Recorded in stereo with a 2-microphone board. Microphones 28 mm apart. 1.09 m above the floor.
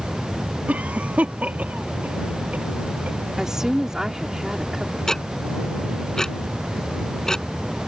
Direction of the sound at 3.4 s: 15° right (ahead or behind).